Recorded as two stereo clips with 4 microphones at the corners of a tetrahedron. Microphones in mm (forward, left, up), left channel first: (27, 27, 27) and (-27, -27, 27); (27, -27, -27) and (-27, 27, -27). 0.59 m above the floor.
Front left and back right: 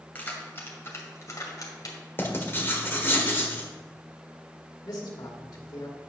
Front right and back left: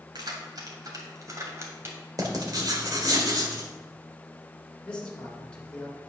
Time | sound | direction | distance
0.1 | keys jangling | 110° left | 2 m
2.2 | writing | 105° left | 1.6 m
4.8 | a man speaking | 30° left | 2 m